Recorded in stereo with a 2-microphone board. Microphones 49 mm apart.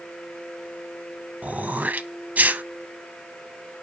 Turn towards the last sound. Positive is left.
turn(degrees=-35)  # may be behind; listen again after turning